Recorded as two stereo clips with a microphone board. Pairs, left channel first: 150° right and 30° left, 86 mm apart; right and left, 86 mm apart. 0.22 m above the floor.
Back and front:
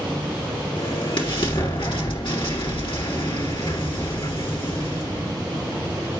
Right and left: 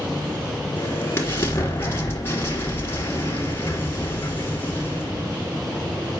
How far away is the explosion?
About 2.5 m.